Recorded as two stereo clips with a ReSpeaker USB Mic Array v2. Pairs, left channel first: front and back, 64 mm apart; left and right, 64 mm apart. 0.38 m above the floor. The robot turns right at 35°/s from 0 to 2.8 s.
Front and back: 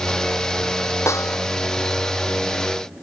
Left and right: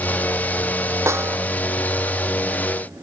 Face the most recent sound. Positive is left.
turn(degrees=15)